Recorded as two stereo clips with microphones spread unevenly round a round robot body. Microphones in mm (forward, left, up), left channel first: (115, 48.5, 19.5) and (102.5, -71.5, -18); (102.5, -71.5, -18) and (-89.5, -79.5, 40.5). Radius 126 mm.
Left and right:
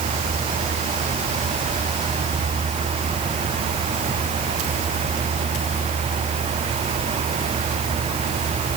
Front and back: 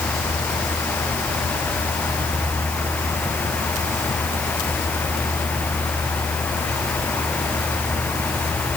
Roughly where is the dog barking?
I don't hear a dog barking.